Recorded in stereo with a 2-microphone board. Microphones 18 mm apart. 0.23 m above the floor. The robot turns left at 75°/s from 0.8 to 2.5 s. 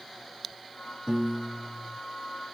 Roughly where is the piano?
Behind right.